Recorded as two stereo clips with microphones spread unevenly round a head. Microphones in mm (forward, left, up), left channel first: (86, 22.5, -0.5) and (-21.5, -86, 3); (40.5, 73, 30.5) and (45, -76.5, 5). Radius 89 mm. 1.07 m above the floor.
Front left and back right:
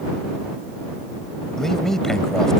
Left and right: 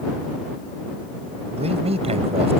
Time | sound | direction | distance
1.6 | a man speaking | 40° right | ?